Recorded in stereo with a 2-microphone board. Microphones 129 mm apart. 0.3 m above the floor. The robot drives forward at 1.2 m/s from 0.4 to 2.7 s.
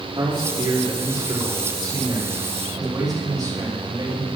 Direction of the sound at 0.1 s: 35° right (ahead or behind).